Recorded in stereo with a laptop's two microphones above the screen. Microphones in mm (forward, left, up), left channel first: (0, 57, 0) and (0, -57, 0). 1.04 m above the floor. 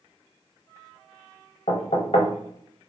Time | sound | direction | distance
1.7 | knocking | 75° left (ahead or behind) | 0.7 m